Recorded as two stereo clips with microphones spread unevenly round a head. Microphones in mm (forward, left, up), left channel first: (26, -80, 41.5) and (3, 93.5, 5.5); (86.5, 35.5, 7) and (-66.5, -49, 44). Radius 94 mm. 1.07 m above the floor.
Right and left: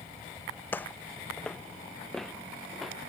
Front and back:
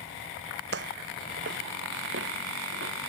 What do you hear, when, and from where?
0.7 s footsteps: 155° right; by 2.9 s 170° right